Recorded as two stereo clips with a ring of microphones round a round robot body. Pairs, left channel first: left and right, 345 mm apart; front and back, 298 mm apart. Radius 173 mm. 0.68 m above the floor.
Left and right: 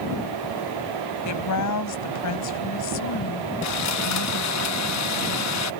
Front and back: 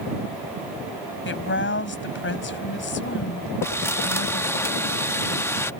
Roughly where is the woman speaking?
Ahead left.